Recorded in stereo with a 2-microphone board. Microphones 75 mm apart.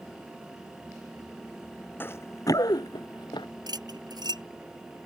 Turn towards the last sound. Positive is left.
turn(degrees=-65)  # may be behind; listen again after turning